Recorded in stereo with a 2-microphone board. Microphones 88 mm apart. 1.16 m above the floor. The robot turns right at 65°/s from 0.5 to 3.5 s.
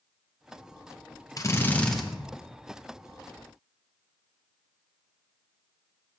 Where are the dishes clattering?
I don't hear dishes clattering.